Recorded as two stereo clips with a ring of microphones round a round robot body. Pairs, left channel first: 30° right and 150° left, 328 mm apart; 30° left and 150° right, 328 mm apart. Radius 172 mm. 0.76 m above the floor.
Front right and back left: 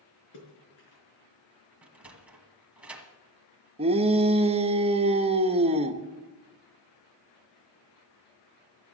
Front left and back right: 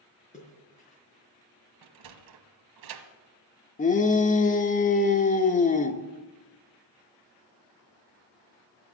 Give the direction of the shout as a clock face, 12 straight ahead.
9 o'clock.